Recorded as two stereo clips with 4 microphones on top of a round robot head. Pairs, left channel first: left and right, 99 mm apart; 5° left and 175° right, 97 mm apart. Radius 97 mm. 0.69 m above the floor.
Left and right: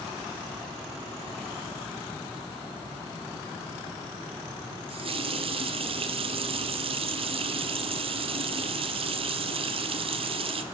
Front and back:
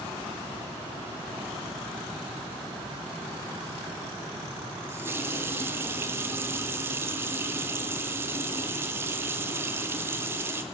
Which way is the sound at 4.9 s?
110° right.